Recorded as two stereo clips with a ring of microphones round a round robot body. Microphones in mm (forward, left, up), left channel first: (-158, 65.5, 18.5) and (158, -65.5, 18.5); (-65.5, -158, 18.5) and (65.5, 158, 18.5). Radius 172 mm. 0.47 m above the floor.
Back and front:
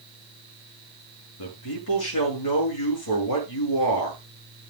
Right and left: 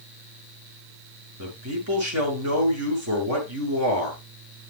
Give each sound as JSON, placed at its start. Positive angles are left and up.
{"t": 1.4, "sound": "a man speaking", "azimuth_deg": 120, "distance_m": 6.5}